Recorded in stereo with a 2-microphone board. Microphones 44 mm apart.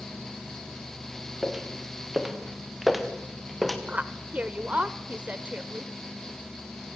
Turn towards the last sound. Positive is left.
turn(degrees=-30)  # may be behind; listen again after turning